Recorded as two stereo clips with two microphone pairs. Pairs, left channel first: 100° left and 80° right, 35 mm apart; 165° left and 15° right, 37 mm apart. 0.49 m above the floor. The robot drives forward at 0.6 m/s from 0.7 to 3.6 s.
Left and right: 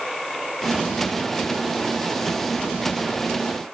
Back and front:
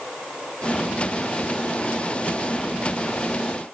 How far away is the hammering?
I don't hear hammering.